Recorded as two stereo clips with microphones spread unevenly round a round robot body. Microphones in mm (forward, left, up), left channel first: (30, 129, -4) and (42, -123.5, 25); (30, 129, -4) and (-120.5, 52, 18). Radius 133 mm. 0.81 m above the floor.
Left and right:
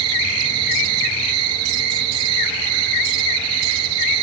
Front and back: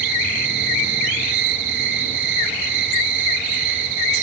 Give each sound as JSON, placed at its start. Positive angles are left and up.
{"t": 0.0, "sound": "an insect", "azimuth_deg": -120, "distance_m": 3.0}